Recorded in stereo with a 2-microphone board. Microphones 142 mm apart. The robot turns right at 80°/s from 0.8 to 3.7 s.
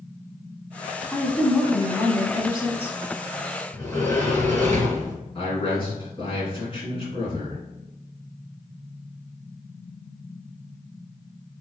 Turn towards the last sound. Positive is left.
turn(degrees=40)  # may be behind; listen again after turning